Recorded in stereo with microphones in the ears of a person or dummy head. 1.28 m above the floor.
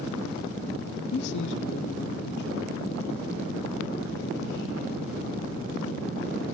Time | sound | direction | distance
1.1 | a man speaking | 70° left (ahead or behind) | 0.7 m